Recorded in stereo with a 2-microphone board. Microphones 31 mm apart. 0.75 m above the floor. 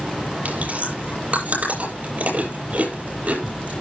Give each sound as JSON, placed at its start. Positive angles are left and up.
{"t": 0.5, "sound": "chewing", "side_deg": -45, "distance_m": 7.5}